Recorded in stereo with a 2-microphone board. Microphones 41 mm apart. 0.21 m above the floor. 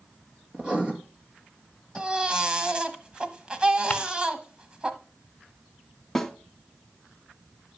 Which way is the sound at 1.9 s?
25° right (ahead or behind).